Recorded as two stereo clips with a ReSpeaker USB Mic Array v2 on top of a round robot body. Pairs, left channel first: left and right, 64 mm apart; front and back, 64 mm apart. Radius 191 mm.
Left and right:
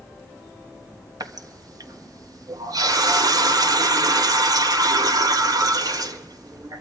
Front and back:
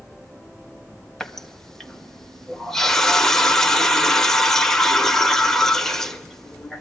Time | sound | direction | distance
1.2 | a running tap | 85° right | 1.5 m